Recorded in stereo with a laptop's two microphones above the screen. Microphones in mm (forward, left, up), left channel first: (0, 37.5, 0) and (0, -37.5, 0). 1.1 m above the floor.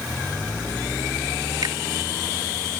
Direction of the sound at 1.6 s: 70° right (ahead or behind).